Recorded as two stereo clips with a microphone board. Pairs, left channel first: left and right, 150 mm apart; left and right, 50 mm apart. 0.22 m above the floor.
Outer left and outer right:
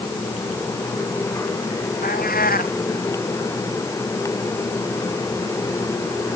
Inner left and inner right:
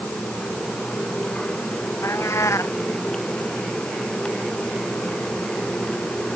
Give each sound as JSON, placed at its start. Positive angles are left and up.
{"t": 2.0, "sound": "a cat meowing", "side_deg": 80}